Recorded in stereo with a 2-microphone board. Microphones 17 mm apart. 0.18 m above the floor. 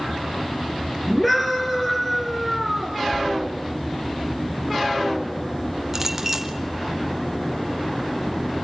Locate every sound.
1.1 s a scream: 5° left (ahead or behind), 2.5 m
3.1 s a door slam: 65° left (ahead or behind), 9 m
5.9 s a clink: 20° right (ahead or behind), 1.5 m